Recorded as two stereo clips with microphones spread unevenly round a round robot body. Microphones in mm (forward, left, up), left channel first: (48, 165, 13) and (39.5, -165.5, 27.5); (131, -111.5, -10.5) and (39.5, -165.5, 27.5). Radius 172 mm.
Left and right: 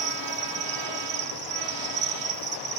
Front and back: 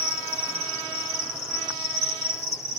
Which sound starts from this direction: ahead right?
An insect, at 0.0 s.